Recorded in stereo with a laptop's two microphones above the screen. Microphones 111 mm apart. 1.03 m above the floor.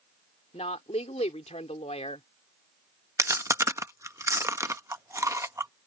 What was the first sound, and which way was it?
A woman speaking, 75° left (ahead or behind).